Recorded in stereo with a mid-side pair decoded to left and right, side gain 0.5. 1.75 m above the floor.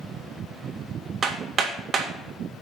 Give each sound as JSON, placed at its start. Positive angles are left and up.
{"t": 1.2, "sound": "hammering", "azimuth_deg": -35, "distance_m": 2.0}